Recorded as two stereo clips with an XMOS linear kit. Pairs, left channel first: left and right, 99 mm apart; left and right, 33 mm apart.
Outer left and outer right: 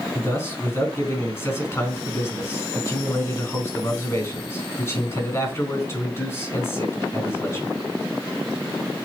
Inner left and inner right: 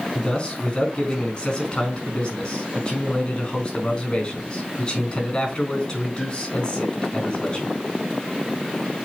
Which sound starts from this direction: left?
A man speaking, at 0.1 s.